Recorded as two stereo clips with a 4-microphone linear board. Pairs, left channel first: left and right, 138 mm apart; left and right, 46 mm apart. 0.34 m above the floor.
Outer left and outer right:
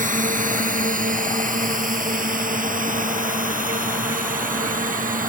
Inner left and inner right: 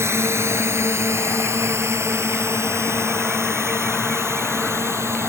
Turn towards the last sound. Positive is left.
turn(degrees=-80)